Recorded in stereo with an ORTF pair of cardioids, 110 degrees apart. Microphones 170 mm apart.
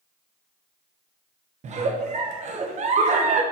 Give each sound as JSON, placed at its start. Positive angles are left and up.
{"t": 1.6, "sound": "a giggle", "azimuth_deg": -45, "distance_m": 0.8}